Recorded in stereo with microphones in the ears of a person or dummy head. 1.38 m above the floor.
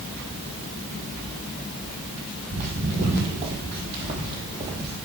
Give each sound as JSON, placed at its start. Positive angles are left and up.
{"t": 2.5, "sound": "footsteps", "side_deg": -45, "distance_m": 3.5}